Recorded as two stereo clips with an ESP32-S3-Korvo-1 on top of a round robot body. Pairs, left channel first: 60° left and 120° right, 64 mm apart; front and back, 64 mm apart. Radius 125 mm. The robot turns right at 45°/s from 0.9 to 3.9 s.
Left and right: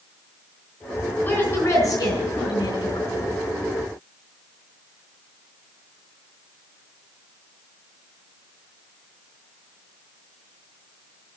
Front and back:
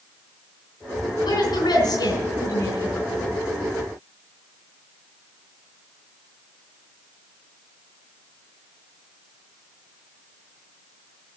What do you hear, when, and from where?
1.2 s a woman speaking: 10° right, 4.5 m; by 3.3 s 80° left, 4.5 m